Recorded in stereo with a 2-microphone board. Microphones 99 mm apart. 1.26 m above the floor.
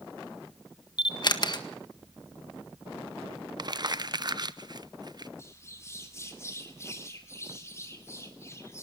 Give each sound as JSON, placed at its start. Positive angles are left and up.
{"t": 1.0, "sound": "a camera shutter", "side_deg": 45, "distance_m": 1.6}
{"t": 3.6, "sound": "crumpling", "side_deg": -45, "distance_m": 0.7}
{"t": 5.4, "sound": "a bird", "side_deg": 25, "distance_m": 2.5}